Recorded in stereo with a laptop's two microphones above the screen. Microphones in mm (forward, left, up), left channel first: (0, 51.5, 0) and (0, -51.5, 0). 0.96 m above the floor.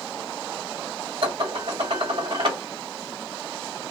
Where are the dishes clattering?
55° right (ahead or behind), 1.2 m.